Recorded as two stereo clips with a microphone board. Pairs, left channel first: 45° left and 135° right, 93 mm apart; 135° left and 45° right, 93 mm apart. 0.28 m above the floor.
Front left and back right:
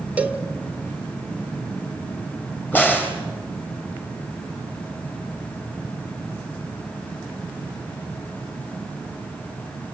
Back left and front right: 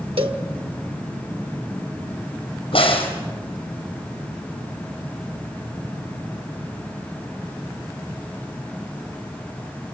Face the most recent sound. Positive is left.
turn(degrees=115)